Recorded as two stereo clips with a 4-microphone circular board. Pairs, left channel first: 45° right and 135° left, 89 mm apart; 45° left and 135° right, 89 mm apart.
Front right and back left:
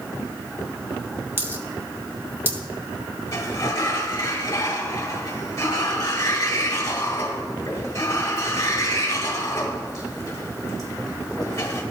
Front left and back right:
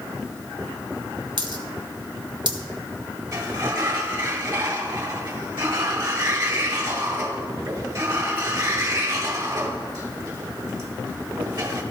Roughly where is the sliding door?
Right.